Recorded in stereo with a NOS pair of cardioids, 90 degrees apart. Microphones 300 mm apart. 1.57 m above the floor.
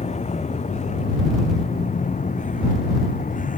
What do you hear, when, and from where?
0.0 s a vehicle: 20° left; by 3.6 s 25° left